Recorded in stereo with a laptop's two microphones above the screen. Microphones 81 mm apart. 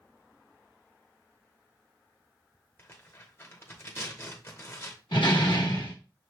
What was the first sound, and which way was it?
Tearing paper, 30° left (ahead or behind).